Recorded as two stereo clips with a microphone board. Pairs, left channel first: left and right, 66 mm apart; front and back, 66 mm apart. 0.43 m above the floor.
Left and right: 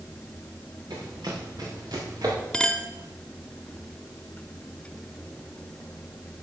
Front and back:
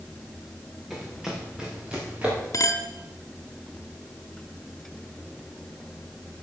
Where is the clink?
10° left, 0.9 m.